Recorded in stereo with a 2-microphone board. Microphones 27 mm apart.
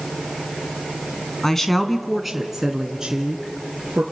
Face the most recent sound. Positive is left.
turn(degrees=-30)  # may be behind; listen again after turning